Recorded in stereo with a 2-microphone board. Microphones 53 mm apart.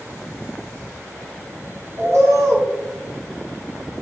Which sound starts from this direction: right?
A bird, at 2.0 s.